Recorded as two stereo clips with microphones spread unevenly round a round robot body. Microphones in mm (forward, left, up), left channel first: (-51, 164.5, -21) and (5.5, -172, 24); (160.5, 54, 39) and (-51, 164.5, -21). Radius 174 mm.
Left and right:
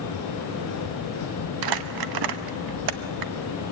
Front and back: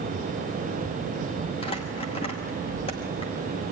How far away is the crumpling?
About 1.1 m.